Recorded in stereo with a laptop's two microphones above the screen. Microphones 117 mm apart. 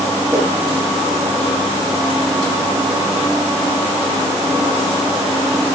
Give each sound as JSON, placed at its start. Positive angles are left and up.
{"t": 0.3, "sound": "a whoosh", "side_deg": -25, "distance_m": 7.0}